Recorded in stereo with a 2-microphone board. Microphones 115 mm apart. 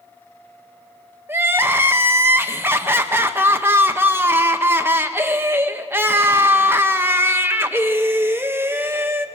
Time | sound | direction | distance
1.3 | crying | 20° right (ahead or behind) | 0.9 m